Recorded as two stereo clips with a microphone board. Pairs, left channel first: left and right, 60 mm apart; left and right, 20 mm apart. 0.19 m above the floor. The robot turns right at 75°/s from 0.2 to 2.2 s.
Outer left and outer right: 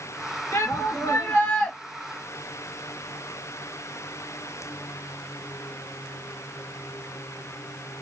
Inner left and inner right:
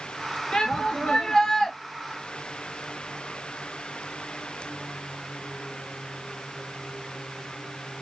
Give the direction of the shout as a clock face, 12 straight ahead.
9 o'clock.